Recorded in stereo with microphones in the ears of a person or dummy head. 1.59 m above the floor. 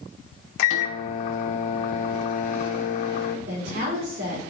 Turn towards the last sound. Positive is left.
turn(degrees=-80)